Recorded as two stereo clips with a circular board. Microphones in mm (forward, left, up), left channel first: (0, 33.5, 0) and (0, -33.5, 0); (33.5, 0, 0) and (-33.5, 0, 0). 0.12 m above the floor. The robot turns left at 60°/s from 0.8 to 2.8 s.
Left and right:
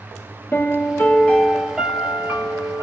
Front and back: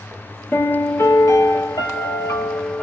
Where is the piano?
55° left, 0.8 m; by 2.8 s 65° right, 0.8 m.